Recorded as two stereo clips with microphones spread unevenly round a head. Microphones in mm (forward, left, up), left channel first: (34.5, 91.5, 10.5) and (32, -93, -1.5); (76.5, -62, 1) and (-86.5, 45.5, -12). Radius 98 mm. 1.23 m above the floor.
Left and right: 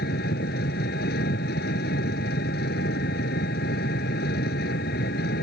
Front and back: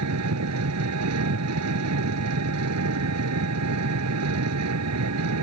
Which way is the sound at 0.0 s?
135° left.